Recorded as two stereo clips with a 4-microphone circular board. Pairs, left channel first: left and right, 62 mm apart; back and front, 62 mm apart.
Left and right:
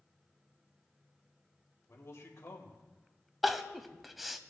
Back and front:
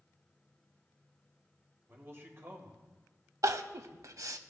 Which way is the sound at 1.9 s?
50° left.